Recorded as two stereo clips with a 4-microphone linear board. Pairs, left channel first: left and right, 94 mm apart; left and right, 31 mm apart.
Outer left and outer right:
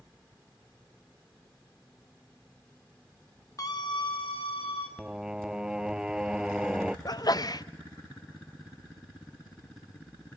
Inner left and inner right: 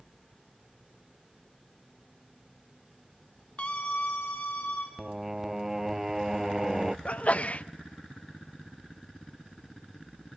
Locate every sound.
3.6 s a scream: 35° left (ahead or behind), 0.8 m; by 4.9 s 75° left (ahead or behind), 2 m
5.0 s singing: 5° right (ahead or behind), 0.6 m
7.0 s a sneeze: 45° left (ahead or behind), 0.7 m